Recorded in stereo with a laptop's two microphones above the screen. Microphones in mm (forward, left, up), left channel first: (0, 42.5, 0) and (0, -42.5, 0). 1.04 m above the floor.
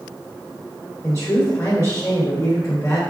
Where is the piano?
No piano in this recording.